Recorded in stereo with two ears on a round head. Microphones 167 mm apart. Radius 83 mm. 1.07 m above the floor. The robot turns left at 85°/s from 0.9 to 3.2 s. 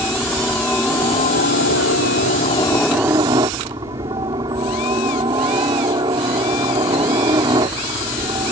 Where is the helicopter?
170° left; by 8.5 s 25° right.